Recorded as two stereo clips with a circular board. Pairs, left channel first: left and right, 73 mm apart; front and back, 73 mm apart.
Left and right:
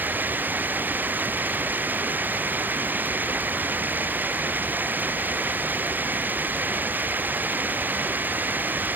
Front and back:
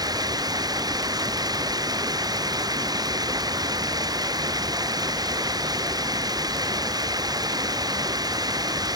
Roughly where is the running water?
Behind right.